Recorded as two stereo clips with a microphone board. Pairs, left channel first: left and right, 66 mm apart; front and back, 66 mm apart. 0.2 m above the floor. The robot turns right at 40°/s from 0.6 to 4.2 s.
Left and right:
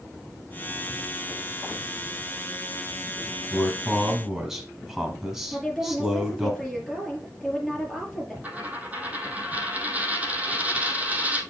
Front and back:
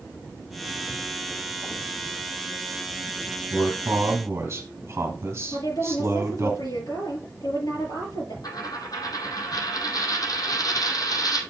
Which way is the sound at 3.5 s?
165° left.